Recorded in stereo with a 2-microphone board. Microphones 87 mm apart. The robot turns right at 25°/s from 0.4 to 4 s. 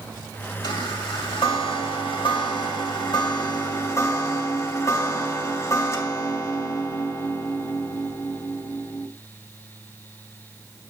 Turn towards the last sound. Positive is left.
turn(degrees=145)